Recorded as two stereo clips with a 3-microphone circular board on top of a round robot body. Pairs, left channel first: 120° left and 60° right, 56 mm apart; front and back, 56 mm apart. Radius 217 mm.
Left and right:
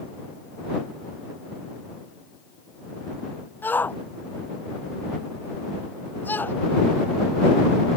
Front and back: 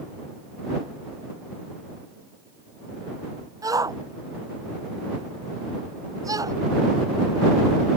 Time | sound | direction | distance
3.6 | a shout | 175° left | ?